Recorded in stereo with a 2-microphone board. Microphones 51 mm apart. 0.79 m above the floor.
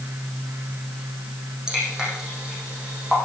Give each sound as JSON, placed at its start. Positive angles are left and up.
{"t": 1.7, "sound": "dripping", "side_deg": -15, "distance_m": 8.5}